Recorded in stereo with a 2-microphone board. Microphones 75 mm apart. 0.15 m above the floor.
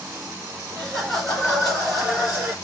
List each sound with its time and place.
0.7 s laughter: 15° left (ahead or behind), 2 m; by 2.5 s 10° right (ahead or behind), 2.5 m